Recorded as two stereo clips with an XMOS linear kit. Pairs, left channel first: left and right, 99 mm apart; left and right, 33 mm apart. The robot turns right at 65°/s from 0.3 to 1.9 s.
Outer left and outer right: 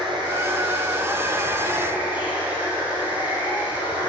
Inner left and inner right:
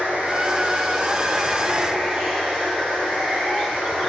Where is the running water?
125° right, 4 m; by 4.1 s 20° right, 4 m.